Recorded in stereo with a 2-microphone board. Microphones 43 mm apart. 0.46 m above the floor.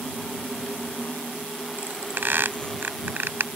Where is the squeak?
60° right (ahead or behind).